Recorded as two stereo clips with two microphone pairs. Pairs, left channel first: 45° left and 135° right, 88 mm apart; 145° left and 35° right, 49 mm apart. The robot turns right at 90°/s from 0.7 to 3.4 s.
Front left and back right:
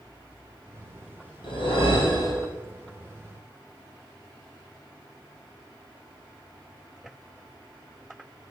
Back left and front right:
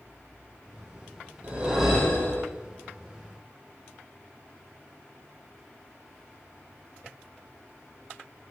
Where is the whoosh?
15° left, 3.5 m; by 2.5 s 110° left, 3.5 m.